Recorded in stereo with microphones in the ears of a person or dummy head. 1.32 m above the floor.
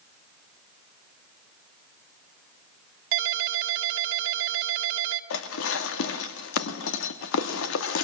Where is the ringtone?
65° right (ahead or behind), 1.7 m.